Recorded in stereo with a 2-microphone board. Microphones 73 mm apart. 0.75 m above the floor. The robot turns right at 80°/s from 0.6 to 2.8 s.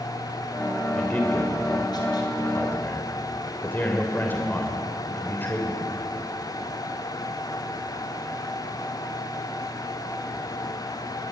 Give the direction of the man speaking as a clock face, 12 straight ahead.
12 o'clock.